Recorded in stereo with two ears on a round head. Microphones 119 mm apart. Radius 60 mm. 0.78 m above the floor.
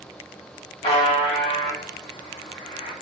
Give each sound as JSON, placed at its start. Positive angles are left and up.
{"t": 0.8, "sound": "a buzzer", "side_deg": 45, "distance_m": 1.9}